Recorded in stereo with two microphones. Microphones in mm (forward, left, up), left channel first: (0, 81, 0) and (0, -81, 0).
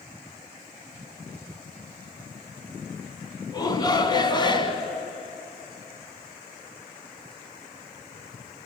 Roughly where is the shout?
Left.